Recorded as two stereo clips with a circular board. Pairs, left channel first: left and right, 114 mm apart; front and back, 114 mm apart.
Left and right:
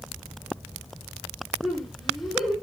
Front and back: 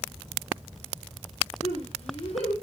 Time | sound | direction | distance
1.6 | laughter | straight ahead | 4 m